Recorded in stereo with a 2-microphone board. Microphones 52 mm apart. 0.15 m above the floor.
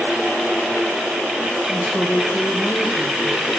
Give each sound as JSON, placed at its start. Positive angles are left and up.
{"t": 1.7, "sound": "a woman speaking", "side_deg": 15, "distance_m": 4.5}